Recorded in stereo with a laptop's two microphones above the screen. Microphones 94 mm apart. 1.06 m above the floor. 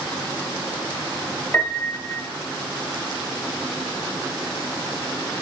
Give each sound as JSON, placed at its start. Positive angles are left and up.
{"t": 1.5, "sound": "a piano", "side_deg": 15, "distance_m": 1.7}